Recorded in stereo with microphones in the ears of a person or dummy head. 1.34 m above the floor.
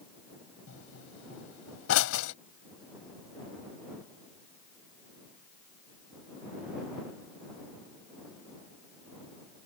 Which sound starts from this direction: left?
A pop, at 0.7 s.